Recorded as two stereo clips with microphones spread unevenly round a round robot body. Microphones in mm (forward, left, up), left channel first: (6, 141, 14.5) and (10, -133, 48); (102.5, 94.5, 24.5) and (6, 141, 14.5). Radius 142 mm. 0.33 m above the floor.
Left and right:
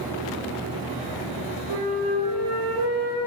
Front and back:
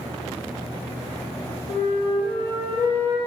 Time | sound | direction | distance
1.7 | a flute | 90° right | 7 m